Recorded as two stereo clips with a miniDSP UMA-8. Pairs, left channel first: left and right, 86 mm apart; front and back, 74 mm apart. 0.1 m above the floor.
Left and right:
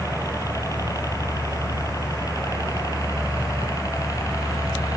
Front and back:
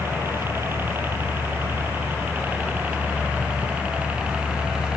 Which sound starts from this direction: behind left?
A helicopter, at 0.0 s.